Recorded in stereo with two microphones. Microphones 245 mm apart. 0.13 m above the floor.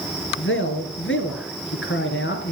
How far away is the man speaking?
About 2.5 m.